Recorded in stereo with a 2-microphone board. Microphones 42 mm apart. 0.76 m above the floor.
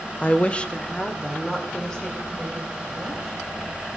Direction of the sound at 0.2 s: 35° left (ahead or behind).